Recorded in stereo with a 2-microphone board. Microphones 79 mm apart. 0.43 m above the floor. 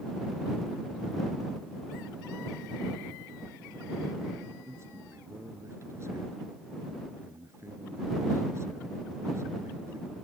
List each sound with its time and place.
4.7 s a man speaking: 35° right (ahead or behind)